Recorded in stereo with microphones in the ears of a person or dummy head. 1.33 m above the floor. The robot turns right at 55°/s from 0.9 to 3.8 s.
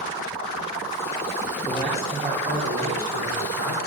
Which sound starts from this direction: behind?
A man speaking, at 1.6 s.